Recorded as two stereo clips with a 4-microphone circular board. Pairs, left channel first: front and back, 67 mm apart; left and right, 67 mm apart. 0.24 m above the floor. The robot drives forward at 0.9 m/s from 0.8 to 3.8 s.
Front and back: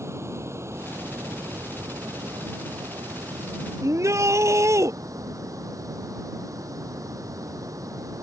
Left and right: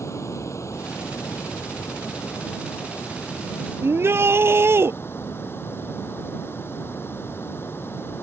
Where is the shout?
140° right.